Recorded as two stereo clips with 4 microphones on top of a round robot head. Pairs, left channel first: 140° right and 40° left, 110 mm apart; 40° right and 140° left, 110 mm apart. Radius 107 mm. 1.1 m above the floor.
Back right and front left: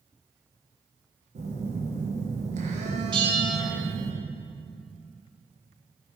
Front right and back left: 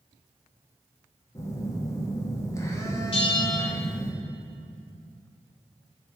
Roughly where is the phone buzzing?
Ahead left.